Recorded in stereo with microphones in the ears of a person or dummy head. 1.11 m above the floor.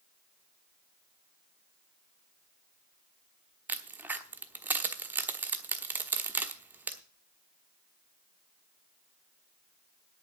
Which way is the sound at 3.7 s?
5° right (ahead or behind).